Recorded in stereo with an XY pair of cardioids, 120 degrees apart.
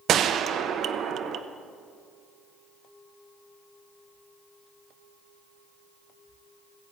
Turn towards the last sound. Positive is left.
turn(degrees=-60)